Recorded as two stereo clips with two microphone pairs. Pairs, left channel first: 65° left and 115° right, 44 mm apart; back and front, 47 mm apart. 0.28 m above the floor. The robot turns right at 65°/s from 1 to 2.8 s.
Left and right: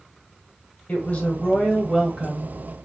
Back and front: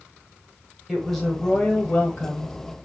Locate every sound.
0.9 s a woman speaking: 90° left, 1.2 m; by 2.6 s 170° right, 1.2 m